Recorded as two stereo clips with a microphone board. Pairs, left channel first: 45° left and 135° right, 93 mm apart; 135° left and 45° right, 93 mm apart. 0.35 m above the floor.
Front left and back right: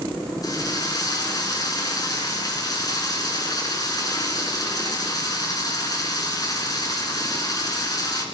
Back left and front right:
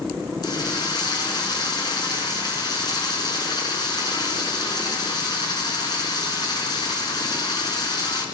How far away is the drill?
About 4.5 m.